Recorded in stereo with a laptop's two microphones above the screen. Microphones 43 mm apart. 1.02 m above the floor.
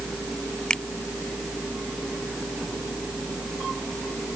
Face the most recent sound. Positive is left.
turn(degrees=20)  # may be behind; listen again after turning